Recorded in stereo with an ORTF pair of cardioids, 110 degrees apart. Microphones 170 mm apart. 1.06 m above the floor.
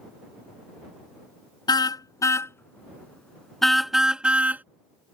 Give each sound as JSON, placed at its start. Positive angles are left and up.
{"t": 1.7, "sound": "a car horn", "azimuth_deg": 25}